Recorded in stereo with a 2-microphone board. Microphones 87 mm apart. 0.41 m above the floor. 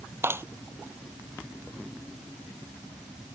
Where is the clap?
30° right (ahead or behind).